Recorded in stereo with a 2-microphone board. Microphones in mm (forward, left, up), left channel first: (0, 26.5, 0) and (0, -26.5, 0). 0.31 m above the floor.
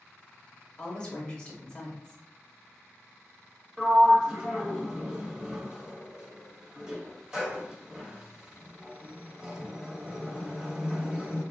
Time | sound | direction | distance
0.8 | a woman speaking | 20° left (ahead or behind) | 0.9 m
3.8 | a sliding door | 15° right (ahead or behind) | 1.3 m